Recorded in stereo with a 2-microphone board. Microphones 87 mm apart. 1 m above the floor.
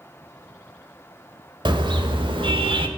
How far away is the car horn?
About 2.5 m.